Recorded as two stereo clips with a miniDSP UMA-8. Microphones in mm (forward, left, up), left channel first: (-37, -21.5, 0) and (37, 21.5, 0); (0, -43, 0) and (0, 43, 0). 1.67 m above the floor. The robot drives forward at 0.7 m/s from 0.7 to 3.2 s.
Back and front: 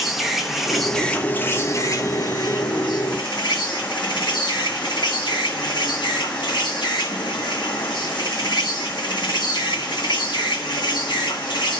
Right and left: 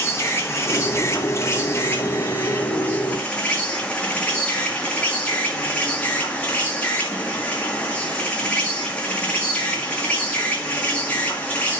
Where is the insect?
55° right, 1.0 m; by 11.8 s 160° right, 1.7 m.